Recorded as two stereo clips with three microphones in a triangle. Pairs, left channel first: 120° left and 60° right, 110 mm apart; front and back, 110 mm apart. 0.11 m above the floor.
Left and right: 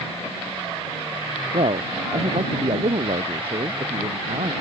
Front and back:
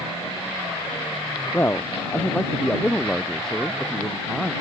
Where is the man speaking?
65° right; by 4.5 s 90° right.